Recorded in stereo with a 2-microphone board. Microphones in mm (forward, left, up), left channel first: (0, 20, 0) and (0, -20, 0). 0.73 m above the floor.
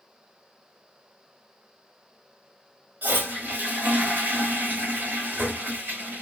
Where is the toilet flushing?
50° right (ahead or behind), 1.2 m.